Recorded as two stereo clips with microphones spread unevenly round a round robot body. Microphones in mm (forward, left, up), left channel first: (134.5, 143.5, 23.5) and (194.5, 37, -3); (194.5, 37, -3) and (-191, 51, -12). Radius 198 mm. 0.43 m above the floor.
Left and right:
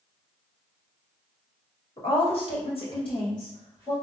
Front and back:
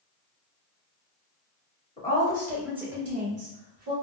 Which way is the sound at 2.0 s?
75° left.